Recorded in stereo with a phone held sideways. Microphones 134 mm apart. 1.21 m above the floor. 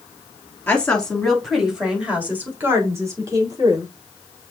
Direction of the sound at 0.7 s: 10° left (ahead or behind).